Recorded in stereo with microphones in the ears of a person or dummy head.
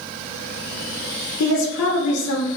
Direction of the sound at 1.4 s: 85° left.